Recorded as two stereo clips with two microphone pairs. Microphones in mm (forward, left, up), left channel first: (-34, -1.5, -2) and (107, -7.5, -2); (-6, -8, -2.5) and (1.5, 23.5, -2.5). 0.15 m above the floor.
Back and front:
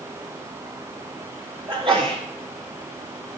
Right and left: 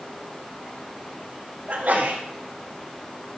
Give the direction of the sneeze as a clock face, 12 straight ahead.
11 o'clock.